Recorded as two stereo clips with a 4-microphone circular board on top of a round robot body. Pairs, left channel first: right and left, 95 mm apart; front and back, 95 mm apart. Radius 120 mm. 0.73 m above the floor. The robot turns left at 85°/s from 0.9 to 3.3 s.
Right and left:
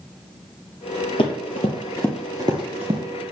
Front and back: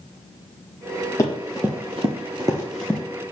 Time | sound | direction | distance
1.2 | running footsteps | 55° right | 1.3 m